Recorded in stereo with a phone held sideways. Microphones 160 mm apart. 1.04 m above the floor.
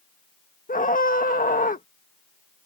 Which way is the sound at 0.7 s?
55° left (ahead or behind).